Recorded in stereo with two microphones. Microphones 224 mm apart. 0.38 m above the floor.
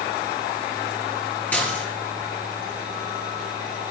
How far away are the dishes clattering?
About 5 m.